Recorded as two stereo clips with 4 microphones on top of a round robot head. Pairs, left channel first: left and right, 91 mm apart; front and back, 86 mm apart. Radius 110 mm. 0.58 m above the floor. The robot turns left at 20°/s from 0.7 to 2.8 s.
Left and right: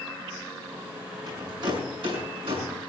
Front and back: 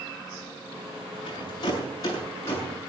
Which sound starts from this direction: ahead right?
A rattle, at 1.3 s.